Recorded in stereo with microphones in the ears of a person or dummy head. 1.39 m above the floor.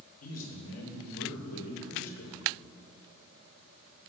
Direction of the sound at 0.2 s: 90° left.